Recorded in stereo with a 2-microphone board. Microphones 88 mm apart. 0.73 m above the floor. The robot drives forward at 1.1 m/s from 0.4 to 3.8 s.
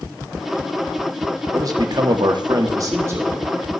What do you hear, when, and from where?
1.5 s a man speaking: 40° right (ahead or behind), 1.1 m; by 3.5 s 25° right (ahead or behind), 1.6 m